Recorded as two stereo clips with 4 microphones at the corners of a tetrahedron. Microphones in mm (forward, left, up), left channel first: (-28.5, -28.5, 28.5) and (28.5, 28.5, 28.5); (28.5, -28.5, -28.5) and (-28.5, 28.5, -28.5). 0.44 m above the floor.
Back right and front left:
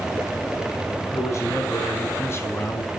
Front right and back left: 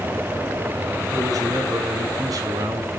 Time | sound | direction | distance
1.1 | a man speaking | 175° left | 4.5 m